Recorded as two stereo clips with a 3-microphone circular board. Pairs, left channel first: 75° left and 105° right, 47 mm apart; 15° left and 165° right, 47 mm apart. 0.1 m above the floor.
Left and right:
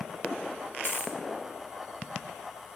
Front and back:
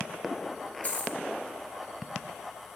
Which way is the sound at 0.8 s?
60° left.